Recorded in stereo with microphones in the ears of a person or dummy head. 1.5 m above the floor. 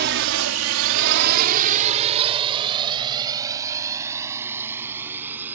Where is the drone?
55° right (ahead or behind); by 5.6 s 15° right (ahead or behind).